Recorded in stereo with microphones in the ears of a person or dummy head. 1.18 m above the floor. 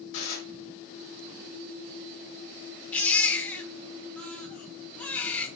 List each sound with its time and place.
0.1 s dishes clattering: 75° left (ahead or behind), 1.5 m
2.9 s a baby crying: 15° left (ahead or behind), 0.6 m